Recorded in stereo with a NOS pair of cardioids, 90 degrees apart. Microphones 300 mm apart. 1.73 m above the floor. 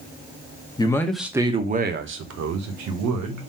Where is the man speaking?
15° left, 0.9 m; by 3.5 s 75° right, 1.4 m.